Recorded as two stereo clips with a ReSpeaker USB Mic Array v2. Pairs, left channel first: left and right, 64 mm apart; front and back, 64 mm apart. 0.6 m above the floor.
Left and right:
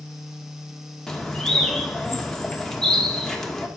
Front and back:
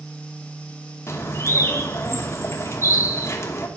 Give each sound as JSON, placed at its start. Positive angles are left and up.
{"t": 1.1, "sound": "a bird", "azimuth_deg": 10, "distance_m": 1.6}